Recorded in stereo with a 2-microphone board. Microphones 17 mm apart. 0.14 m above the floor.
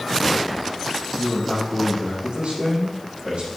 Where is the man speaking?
70° right (ahead or behind), 6 m.